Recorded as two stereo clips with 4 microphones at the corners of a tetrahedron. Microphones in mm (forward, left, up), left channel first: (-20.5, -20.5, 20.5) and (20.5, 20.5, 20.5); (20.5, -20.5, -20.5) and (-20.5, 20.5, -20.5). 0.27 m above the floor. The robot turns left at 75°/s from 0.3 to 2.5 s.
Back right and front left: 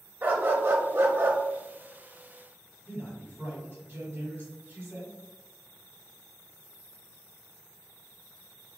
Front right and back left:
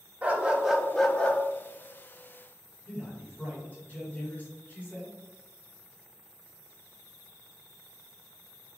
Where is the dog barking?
85° left, 0.5 m; by 1.4 s 5° left, 0.5 m.